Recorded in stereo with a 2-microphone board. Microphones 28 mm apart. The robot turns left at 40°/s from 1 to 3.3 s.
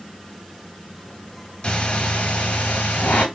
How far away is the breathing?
About 2 m.